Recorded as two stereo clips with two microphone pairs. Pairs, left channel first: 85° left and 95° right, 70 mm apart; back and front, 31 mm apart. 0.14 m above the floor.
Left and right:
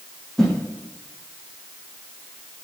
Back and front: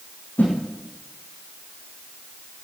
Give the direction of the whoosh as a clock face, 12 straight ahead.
6 o'clock.